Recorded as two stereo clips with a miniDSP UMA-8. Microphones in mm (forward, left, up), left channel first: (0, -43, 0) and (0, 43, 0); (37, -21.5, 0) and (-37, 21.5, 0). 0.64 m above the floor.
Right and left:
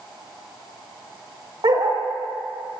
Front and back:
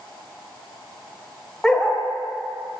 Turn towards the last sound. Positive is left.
turn(degrees=55)